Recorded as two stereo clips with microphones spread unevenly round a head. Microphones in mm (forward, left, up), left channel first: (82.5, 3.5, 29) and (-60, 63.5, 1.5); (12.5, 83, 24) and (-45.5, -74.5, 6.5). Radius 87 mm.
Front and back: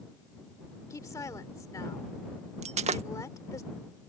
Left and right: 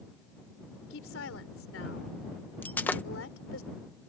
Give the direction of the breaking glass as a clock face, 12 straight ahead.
8 o'clock.